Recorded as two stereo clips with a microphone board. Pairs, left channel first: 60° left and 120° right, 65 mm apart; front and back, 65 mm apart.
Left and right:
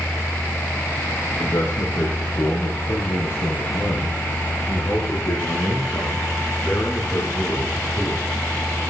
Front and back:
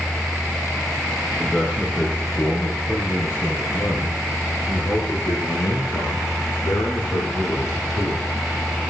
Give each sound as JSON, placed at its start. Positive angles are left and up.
{"t": 1.4, "sound": "a man speaking", "azimuth_deg": 65, "distance_m": 3.5}